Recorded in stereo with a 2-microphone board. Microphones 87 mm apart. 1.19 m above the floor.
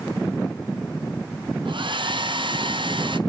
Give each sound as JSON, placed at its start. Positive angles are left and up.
{"t": 1.6, "sound": "a hair dryer", "side_deg": -70, "distance_m": 0.6}